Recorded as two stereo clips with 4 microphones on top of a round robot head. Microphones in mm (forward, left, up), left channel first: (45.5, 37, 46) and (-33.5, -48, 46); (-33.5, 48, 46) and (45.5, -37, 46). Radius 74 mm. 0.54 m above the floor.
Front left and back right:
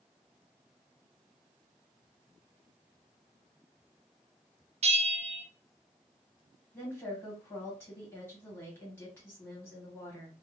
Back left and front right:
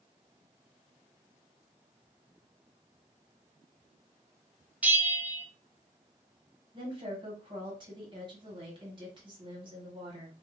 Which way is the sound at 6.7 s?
20° right.